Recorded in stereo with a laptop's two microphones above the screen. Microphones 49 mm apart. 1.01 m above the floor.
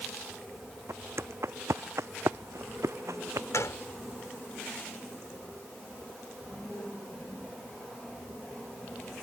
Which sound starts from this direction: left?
A gunshot, at 3.5 s.